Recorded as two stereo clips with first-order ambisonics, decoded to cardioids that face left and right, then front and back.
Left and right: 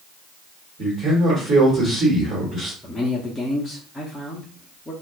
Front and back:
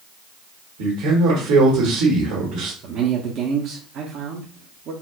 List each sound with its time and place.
0.8 s a man speaking: 160° right, 1.6 m
2.8 s a man speaking: 170° left, 0.6 m